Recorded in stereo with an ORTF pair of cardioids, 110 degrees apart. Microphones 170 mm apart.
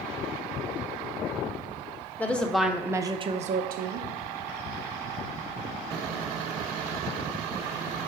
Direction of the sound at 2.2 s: 10° left.